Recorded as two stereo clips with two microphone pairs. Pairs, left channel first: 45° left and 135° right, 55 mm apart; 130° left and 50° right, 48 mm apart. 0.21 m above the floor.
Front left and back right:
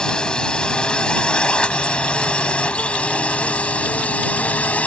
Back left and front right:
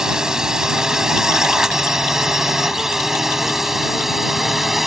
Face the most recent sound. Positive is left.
turn(degrees=30)